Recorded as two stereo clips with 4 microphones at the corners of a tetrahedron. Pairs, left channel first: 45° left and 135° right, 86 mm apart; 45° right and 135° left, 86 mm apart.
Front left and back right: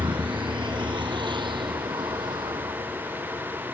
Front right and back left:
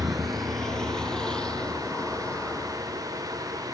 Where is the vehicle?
135° right; by 3.7 s 120° right.